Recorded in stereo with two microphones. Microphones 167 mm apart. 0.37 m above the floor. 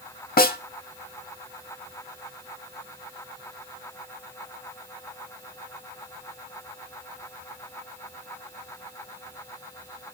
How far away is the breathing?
I don't hear breathing.